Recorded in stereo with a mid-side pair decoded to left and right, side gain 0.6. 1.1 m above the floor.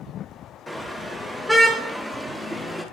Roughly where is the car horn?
Ahead.